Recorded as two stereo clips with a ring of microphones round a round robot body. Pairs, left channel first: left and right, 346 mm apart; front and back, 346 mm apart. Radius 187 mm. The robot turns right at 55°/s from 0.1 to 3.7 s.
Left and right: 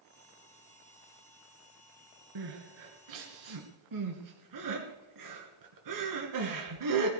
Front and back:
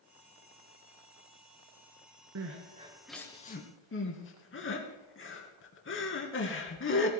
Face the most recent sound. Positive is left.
turn(degrees=-55)